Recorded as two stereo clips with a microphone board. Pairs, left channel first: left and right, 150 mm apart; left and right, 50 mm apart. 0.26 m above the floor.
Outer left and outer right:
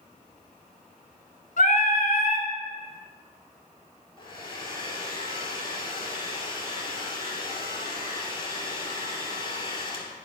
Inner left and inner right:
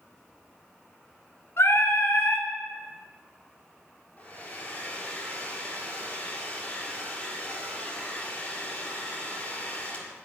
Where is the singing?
65° left (ahead or behind), 1.3 m.